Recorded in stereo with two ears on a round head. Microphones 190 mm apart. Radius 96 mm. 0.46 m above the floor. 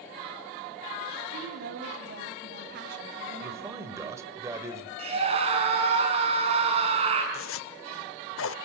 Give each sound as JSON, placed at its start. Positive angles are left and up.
{"t": 1.3, "sound": "a woman speaking", "side_deg": -50, "distance_m": 3.5}
{"t": 3.4, "sound": "a man speaking", "side_deg": -15, "distance_m": 2.0}
{"t": 5.0, "sound": "a scream", "side_deg": -30, "distance_m": 5.5}
{"t": 7.3, "sound": "a zipper", "side_deg": 70, "distance_m": 0.7}